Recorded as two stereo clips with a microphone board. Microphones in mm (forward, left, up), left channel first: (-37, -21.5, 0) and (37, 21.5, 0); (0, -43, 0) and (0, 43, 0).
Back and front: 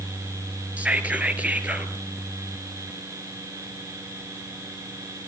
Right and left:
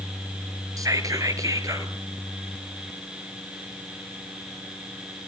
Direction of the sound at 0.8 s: 100° left.